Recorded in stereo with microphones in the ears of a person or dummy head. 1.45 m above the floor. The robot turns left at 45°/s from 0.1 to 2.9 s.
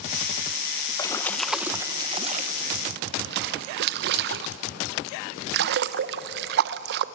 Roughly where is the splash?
Left.